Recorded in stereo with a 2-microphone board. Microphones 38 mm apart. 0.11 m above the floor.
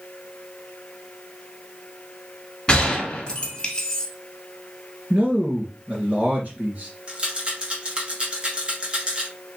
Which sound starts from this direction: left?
A gunshot, at 2.7 s.